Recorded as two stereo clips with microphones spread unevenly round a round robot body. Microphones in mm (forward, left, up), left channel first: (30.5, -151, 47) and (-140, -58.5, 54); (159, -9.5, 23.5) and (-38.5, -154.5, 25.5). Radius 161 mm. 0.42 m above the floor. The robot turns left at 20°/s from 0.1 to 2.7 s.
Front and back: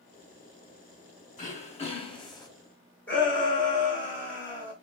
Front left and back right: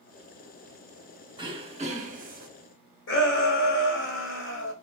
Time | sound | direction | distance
1.4 | throat clearing | 75° right | 0.9 m
3.1 | a shout | 50° left | 1.3 m